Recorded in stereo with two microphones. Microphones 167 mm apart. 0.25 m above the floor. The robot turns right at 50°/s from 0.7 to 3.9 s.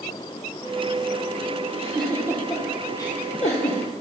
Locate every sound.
1.7 s a giggle: 40° right (ahead or behind), 2 m; by 3.8 s 60° left (ahead or behind), 2 m